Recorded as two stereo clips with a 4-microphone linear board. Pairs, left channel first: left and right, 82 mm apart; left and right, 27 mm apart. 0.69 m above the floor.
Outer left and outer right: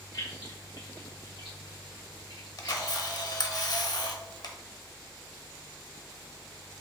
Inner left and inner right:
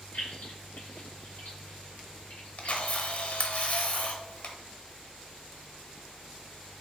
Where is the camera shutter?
55° left (ahead or behind), 0.8 m.